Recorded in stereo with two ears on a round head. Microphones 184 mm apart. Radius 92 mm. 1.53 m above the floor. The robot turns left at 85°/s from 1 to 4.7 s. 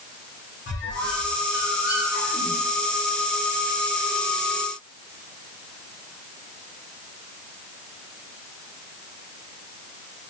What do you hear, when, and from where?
0.7 s a squeak: 55° left (ahead or behind), 1.0 m; by 2.6 s 55° right (ahead or behind), 1.0 m